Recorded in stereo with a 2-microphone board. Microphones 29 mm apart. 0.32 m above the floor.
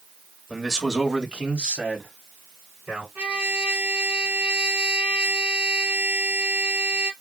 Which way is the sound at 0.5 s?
10° right (ahead or behind).